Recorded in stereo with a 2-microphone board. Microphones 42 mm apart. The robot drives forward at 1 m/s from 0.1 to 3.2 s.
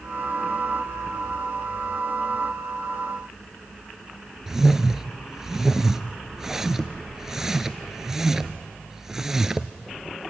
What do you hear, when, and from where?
4.5 s a whoosh: 10° right (ahead or behind), 0.7 m